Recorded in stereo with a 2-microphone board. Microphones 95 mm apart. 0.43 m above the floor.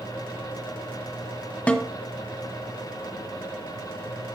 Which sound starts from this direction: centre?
A snare drum, at 1.7 s.